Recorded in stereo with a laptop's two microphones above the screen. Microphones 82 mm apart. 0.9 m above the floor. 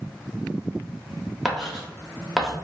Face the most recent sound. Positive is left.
turn(degrees=0)  # may be behind; listen again after turning